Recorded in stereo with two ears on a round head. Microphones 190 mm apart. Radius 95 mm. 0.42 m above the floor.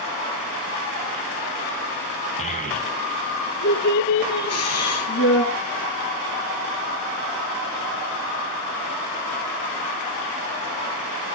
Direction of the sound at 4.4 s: 80° left.